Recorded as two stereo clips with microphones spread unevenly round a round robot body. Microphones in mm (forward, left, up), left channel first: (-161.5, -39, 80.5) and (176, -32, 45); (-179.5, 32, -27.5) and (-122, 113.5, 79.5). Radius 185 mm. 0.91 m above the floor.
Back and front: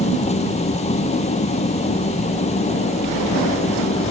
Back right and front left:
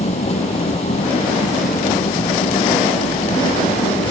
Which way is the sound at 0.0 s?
105° right.